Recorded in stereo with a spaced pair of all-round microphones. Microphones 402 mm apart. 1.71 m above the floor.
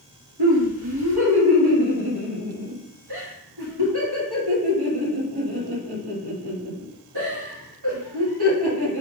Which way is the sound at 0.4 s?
70° right (ahead or behind).